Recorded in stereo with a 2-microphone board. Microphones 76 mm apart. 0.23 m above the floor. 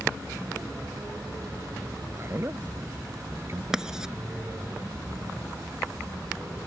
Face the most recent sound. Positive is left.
turn(degrees=-10)  # may be behind; listen again after turning